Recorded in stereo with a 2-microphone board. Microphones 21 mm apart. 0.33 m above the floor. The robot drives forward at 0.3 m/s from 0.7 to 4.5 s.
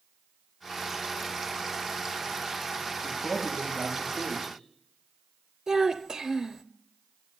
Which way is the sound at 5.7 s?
25° right (ahead or behind).